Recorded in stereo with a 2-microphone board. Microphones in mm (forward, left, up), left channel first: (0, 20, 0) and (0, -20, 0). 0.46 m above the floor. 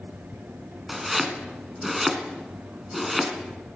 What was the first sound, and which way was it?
Chopping, 5° right (ahead or behind).